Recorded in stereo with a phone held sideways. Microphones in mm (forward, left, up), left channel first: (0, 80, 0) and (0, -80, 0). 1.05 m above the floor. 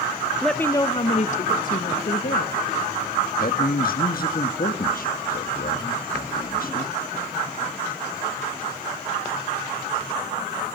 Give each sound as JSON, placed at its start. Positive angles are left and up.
{"t": 0.4, "sound": "a woman speaking", "side_deg": 0, "distance_m": 0.8}
{"t": 3.4, "sound": "a man speaking", "side_deg": 65, "distance_m": 1.7}